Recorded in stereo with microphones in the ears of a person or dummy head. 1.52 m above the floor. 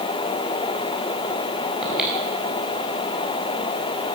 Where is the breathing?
5° right (ahead or behind), 4 m.